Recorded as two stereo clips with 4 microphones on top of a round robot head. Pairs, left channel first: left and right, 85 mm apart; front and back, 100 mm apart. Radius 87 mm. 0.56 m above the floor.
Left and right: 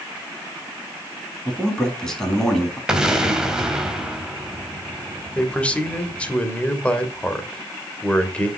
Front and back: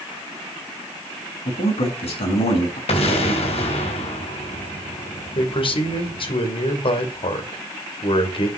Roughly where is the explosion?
Ahead.